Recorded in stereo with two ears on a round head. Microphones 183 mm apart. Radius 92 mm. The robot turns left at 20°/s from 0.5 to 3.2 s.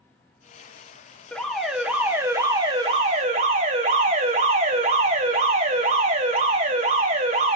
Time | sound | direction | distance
1.3 | an alarm | 5° left | 2 m